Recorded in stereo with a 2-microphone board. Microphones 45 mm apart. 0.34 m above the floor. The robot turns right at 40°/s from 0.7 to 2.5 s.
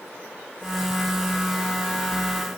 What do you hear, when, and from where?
Only background noise.